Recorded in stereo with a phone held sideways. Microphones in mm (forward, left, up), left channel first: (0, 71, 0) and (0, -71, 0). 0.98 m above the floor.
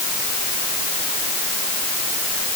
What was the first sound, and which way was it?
Only background noise.